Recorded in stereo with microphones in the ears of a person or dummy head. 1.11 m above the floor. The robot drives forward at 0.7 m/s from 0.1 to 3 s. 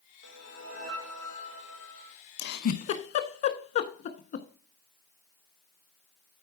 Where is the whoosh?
75° right (ahead or behind), 1.8 m; by 2.2 s 55° right (ahead or behind), 2 m.